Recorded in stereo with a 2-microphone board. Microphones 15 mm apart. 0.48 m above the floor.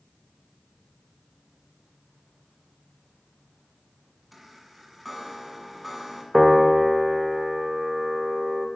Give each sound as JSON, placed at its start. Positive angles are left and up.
{"t": 4.3, "sound": "a chime", "side_deg": 5, "distance_m": 1.7}
{"t": 6.3, "sound": "a piano", "side_deg": -10, "distance_m": 0.9}